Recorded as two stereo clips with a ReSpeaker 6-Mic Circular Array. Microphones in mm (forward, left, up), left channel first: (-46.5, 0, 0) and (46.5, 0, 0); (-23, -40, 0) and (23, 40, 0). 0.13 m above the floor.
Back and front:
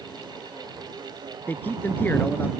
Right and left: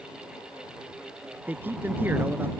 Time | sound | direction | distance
1.5 | a man speaking | 120° left | ?